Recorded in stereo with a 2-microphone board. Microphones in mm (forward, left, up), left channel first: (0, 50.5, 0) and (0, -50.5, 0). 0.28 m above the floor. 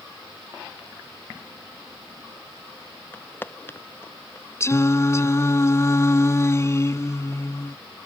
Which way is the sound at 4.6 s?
30° left (ahead or behind).